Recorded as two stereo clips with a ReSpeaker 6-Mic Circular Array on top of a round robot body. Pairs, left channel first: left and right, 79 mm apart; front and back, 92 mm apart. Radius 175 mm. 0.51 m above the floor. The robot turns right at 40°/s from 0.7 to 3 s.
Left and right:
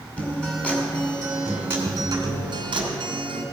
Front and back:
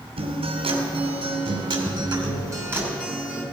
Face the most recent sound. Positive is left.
turn(degrees=-100)